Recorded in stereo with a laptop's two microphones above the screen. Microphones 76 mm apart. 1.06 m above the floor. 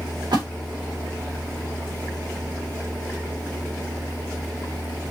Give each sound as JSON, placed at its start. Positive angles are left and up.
{"t": 0.3, "sound": "a splash", "side_deg": -80, "distance_m": 2.0}